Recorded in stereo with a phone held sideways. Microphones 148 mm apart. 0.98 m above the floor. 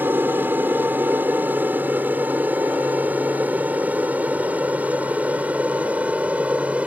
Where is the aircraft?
15° right (ahead or behind); by 6.9 s 10° right (ahead or behind).